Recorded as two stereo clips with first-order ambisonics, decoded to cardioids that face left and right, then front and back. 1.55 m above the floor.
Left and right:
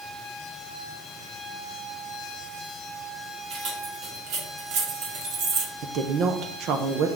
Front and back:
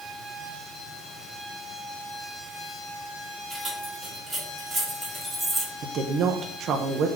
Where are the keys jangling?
100° right, 2.5 m; by 5.7 s 95° right, 1.4 m.